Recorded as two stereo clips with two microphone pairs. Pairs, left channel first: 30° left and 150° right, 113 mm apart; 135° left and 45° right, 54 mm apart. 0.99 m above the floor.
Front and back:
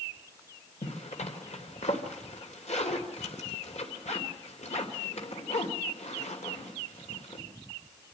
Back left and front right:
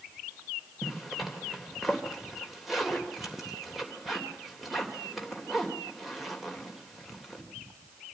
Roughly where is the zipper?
Ahead left.